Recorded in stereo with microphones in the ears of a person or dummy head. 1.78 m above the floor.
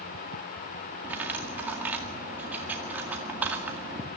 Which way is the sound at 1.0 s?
10° right (ahead or behind).